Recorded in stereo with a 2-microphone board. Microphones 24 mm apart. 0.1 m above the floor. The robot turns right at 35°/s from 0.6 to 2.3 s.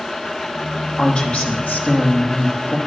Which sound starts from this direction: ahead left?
A woman speaking, at 1.0 s.